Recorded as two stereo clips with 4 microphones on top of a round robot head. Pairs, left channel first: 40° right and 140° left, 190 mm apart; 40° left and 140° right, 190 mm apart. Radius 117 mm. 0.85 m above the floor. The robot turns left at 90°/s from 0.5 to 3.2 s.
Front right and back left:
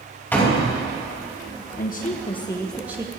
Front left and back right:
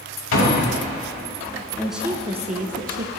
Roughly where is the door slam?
Ahead left.